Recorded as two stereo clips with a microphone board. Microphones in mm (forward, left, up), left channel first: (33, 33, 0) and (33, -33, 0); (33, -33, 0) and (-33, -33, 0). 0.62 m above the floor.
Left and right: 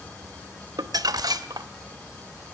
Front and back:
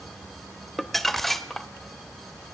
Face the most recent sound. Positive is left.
turn(degrees=-85)